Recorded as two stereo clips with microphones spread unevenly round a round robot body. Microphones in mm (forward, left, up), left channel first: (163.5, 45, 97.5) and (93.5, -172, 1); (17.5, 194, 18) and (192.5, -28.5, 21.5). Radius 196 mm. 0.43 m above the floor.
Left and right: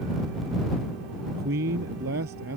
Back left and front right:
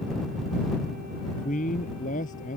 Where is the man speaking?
160° right.